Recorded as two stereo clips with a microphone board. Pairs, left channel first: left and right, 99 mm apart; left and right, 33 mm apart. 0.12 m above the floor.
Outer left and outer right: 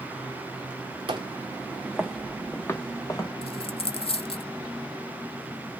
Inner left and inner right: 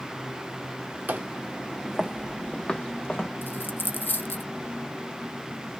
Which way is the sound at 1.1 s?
60° right (ahead or behind).